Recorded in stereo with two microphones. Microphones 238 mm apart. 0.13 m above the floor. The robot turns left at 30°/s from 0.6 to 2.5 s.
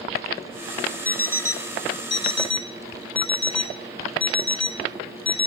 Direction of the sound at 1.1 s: 5° left (ahead or behind).